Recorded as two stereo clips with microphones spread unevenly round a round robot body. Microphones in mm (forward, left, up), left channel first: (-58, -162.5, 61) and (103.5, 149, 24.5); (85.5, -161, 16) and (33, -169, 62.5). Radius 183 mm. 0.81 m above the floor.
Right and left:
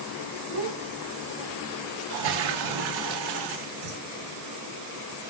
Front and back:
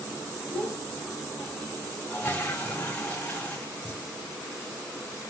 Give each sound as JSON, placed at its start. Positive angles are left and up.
{"t": 0.5, "sound": "a child speaking", "azimuth_deg": 70, "distance_m": 4.5}
{"t": 2.1, "sound": "a toilet flushing", "azimuth_deg": 50, "distance_m": 1.2}